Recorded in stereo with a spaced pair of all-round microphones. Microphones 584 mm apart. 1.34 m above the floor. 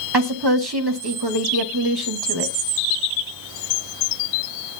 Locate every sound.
0.1 s a woman speaking: 40° right (ahead or behind), 2.5 m